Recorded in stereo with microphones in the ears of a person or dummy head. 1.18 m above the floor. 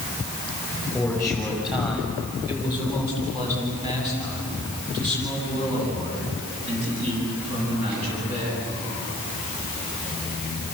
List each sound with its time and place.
0.9 s a man speaking: 5° left (ahead or behind), 6.5 m; by 8.7 s 40° right (ahead or behind), 15 m